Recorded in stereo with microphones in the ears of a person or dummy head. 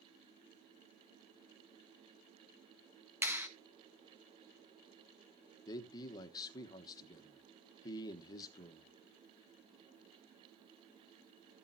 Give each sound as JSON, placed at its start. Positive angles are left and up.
{"t": 3.2, "sound": "a clap", "side_deg": -15, "distance_m": 1.4}
{"t": 5.7, "sound": "a man speaking", "side_deg": 25, "distance_m": 1.2}